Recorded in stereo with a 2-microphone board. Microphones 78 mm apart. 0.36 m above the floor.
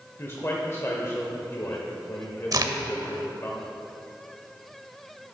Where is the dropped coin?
No dropped coin in this recording.